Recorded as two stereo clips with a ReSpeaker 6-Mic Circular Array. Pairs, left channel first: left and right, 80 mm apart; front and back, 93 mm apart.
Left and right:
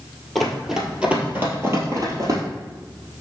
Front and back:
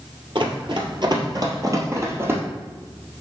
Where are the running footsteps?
Straight behind, 1.6 m; by 2.4 s 120° right, 1.8 m.